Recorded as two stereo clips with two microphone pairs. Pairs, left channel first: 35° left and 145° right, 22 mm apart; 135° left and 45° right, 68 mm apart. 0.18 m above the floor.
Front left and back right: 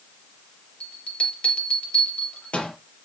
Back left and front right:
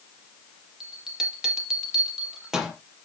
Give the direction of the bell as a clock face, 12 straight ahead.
11 o'clock.